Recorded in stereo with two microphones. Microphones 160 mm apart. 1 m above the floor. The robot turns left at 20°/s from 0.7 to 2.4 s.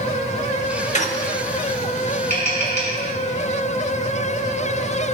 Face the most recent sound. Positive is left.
turn(degrees=85)